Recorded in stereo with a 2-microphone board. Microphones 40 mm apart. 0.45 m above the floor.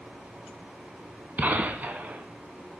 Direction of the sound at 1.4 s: 50° right (ahead or behind).